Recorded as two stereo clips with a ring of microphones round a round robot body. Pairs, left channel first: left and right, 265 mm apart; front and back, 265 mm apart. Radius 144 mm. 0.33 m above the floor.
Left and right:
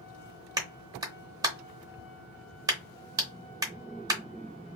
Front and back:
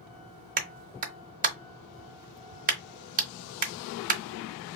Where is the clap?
155° right, 0.7 m.